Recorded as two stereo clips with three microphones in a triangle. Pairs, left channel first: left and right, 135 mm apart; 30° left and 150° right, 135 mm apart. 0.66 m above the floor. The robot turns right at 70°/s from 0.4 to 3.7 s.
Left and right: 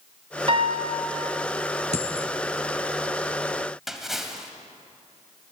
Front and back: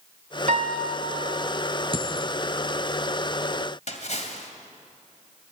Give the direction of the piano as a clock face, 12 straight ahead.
5 o'clock.